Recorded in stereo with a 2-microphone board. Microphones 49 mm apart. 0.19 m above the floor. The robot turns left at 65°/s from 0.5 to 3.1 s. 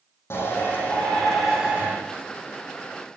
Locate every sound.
0.3 s a shout: 60° left, 9.5 m; by 1.9 s 30° right, 9.5 m